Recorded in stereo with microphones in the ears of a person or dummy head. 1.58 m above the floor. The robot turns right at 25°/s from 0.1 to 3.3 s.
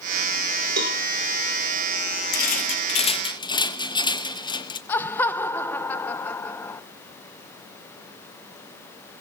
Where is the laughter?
15° left (ahead or behind), 0.9 m.